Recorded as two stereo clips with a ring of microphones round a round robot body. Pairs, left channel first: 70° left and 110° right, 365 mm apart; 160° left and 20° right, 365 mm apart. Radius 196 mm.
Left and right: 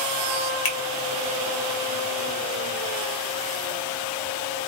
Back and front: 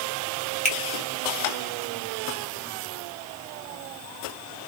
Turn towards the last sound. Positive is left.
turn(degrees=85)